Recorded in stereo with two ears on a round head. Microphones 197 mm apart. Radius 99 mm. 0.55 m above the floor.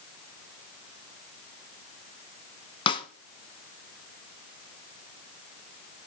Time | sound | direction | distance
2.9 | a snare drum | 25° left (ahead or behind) | 0.9 m